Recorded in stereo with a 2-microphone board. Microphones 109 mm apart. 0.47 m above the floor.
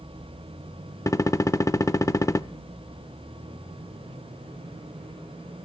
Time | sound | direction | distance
1.1 | a gunshot | 30° left (ahead or behind) | 0.5 m